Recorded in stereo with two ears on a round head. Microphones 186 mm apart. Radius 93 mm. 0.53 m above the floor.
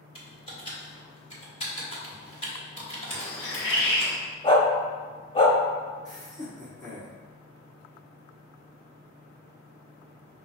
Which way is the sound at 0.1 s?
30° left (ahead or behind).